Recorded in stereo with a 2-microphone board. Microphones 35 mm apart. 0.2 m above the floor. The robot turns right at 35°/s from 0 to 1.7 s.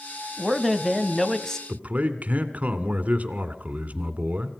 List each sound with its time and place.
0.4 s a man speaking: centre (ahead or behind), 1.0 m; by 1.6 s 15° left (ahead or behind), 1.0 m
1.7 s a man speaking: 45° right (ahead or behind), 2 m